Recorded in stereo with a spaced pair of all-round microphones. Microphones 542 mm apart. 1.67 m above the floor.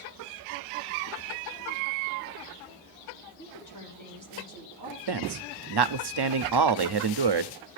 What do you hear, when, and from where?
3.4 s a woman speaking: 35° left (ahead or behind), 4.5 m
5.1 s a man speaking: 50° right (ahead or behind), 0.5 m